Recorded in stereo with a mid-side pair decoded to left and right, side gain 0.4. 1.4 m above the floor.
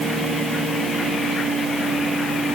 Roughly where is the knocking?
I don't hear knocking.